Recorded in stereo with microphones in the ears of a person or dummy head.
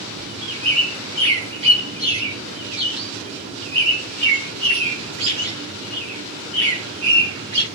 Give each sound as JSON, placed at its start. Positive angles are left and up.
{"t": 0.2, "sound": "a bird", "side_deg": -30, "distance_m": 2.5}